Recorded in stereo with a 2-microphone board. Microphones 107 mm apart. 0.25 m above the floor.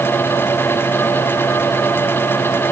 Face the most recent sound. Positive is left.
No sound to turn to.